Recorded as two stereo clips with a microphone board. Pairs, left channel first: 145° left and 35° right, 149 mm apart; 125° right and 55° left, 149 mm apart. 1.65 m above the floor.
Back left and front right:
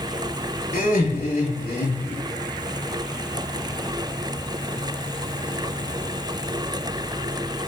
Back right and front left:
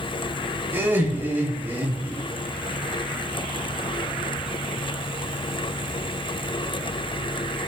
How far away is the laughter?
About 4 m.